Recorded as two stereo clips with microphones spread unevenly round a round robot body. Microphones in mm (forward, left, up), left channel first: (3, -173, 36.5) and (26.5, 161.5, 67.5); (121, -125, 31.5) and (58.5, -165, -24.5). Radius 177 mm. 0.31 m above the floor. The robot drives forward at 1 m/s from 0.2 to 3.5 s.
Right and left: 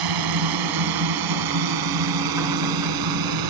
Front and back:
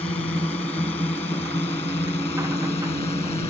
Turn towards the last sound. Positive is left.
turn(degrees=65)